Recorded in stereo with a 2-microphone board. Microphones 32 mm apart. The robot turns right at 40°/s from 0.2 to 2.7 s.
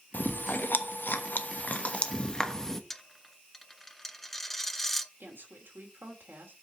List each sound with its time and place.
0.1 s chewing: 65° left (ahead or behind), 1.1 m; by 2.8 s 15° left (ahead or behind), 1.1 m
2.9 s a dropped coin: 10° left (ahead or behind), 0.6 m
5.2 s a woman speaking: 90° right, 3 m